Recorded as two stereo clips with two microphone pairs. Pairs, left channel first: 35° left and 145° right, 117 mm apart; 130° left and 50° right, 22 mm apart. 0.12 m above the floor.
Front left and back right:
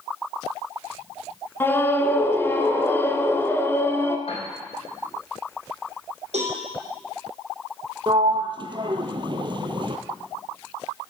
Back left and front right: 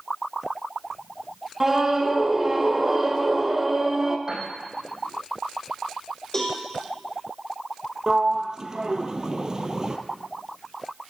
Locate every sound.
1.6 s a scream: 5° left, 1.2 m
4.3 s a piano: 10° left, 4 m
6.3 s a cowbell: 160° right, 4.5 m
8.1 s a sliding door: 105° right, 0.9 m